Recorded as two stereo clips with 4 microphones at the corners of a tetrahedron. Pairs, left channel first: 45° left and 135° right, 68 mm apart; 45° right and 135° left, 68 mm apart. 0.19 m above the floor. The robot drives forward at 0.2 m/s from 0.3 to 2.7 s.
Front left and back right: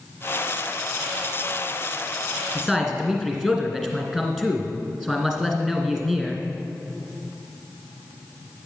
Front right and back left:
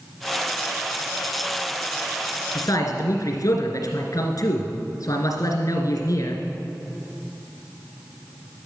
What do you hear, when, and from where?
2.5 s a man speaking: 50° right, 2.5 m